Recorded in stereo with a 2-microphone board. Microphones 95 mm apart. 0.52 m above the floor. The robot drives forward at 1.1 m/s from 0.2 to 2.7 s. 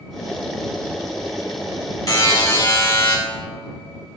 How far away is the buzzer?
About 1.8 m.